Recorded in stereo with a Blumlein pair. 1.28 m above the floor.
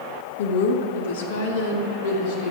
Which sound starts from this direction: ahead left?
A woman speaking, at 0.4 s.